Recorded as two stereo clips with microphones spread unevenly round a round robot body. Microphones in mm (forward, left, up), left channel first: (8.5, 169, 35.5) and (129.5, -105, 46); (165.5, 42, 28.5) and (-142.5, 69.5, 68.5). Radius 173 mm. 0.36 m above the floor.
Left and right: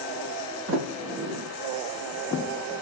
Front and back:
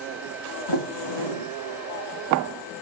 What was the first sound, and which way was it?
A sliding door, 20° right.